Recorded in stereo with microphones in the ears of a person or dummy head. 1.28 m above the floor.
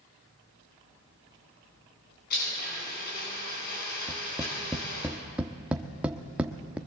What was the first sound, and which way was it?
A blender, 50° left (ahead or behind).